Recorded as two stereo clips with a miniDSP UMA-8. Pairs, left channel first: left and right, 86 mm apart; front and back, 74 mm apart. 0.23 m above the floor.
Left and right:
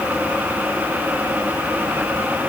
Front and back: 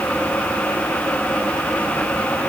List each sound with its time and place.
Only background noise.